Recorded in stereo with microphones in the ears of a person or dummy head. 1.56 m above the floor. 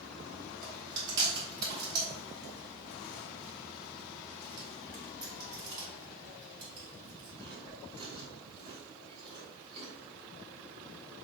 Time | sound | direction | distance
0.6 | chewing | 25° right (ahead or behind) | 3.5 m